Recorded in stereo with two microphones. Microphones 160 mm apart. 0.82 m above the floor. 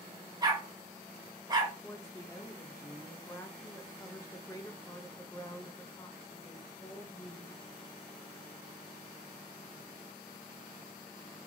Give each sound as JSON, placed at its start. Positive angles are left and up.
{"t": 0.4, "sound": "a dog barking", "side_deg": -25, "distance_m": 1.0}
{"t": 1.8, "sound": "a woman speaking", "side_deg": 20, "distance_m": 0.5}